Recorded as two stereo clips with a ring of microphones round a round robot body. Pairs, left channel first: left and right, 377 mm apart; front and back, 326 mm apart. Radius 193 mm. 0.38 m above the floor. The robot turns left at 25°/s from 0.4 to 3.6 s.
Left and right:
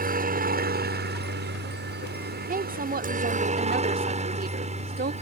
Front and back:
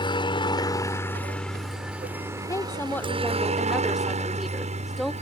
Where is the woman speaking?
65° right; by 5.1 s 90° right.